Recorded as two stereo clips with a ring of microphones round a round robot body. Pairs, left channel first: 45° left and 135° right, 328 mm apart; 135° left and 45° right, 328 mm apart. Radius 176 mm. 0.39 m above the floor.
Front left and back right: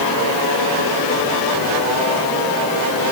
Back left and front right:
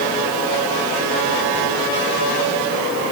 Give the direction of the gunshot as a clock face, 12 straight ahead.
No gunshot in this recording.